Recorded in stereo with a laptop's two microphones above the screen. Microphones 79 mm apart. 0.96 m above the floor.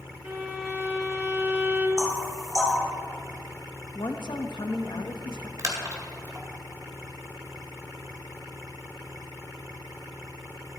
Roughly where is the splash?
Right.